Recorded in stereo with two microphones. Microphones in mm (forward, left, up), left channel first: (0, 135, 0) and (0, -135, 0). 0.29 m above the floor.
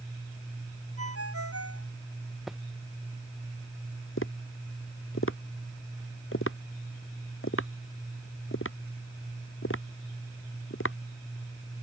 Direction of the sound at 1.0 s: 60° right (ahead or behind).